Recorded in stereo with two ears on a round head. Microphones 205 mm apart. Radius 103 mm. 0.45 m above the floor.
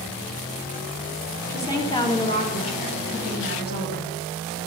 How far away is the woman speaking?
About 3 m.